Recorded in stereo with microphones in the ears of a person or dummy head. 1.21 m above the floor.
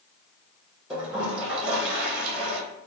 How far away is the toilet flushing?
About 1.1 m.